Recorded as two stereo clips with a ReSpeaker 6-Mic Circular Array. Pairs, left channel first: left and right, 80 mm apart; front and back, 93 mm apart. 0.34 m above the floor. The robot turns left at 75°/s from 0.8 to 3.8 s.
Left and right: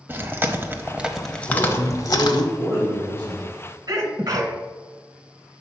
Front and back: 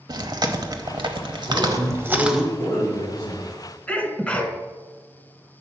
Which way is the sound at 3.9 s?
70° right.